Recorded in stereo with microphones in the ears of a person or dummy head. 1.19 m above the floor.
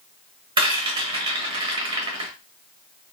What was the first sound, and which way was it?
A rattle, 20° right (ahead or behind).